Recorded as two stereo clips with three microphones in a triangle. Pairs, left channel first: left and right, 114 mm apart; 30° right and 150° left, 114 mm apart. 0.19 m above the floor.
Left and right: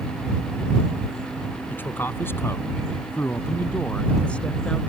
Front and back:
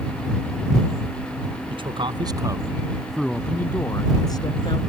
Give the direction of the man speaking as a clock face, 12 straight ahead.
7 o'clock.